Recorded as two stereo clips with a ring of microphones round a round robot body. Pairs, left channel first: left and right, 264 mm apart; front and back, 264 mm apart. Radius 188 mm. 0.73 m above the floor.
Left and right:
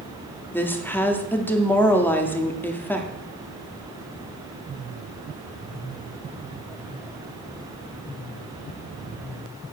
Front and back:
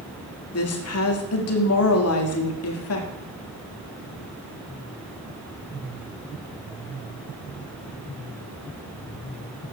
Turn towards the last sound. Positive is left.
turn(degrees=10)